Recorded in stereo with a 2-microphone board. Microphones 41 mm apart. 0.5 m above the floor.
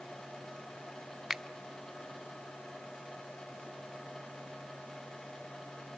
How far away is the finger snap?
About 0.6 m.